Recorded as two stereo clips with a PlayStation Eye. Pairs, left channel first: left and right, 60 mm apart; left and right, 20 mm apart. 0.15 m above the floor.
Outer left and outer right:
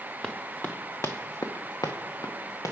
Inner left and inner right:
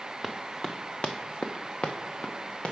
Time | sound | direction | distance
0.2 | running footsteps | 5° left (ahead or behind) | 0.8 m